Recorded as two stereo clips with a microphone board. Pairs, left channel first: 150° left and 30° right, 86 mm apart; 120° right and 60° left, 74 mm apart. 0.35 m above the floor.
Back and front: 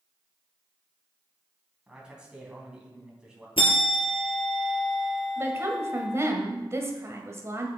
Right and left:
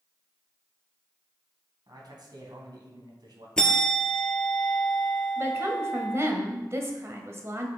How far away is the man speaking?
About 3 m.